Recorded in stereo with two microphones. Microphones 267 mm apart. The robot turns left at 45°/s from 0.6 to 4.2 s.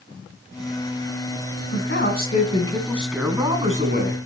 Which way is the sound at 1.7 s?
60° left.